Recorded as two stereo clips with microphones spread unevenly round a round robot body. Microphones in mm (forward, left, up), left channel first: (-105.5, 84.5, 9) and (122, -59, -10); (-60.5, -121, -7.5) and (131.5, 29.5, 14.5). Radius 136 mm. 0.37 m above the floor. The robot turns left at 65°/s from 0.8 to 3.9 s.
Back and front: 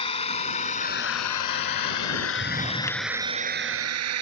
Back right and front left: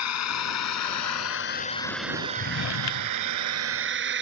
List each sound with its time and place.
0.0 s a drone: 140° right; by 4.2 s 5° right
2.4 s a drawer: 100° right; by 4.2 s 160° left